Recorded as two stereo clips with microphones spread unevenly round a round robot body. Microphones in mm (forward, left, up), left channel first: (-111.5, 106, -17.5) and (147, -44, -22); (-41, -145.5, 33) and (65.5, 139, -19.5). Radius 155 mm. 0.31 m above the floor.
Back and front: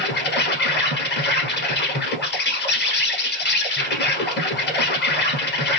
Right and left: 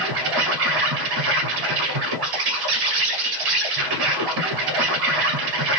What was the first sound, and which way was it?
An insect, 90° left.